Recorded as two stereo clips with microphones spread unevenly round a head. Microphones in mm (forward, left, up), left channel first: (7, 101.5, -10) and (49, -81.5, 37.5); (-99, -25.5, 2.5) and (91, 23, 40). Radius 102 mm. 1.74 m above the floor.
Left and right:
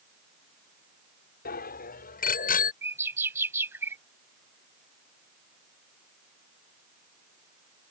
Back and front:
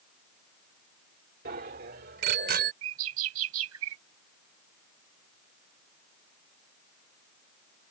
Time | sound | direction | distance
1.4 | a bicycle bell | 55° left | ?
2.8 | a bird | straight ahead | ?